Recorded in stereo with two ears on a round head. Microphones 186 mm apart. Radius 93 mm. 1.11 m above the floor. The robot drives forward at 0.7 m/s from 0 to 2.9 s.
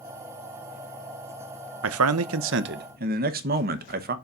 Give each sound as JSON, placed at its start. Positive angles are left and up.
{"t": 1.8, "sound": "a man speaking", "side_deg": -70, "distance_m": 0.6}